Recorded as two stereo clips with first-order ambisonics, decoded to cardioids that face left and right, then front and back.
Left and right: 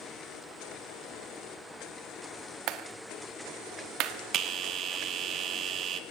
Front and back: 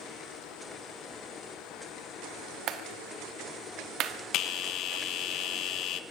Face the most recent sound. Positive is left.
turn(degrees=-40)